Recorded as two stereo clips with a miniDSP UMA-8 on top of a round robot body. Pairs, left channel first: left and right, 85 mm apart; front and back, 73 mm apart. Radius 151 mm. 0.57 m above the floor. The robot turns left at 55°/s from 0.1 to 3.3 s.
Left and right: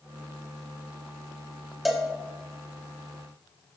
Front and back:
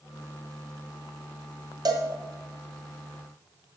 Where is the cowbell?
Straight behind, 1.1 m; by 2.1 s 170° left, 1.1 m.